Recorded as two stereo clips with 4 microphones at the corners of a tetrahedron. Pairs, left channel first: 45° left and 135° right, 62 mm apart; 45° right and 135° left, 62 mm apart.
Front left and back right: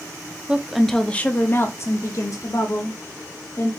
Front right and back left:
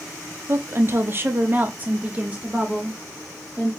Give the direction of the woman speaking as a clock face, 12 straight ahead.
7 o'clock.